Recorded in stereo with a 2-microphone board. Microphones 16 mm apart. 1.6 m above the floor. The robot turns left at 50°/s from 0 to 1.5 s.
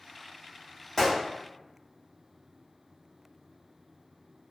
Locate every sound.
1.0 s a gunshot: 25° left (ahead or behind), 1.4 m; by 1.2 s 30° left (ahead or behind), 1.4 m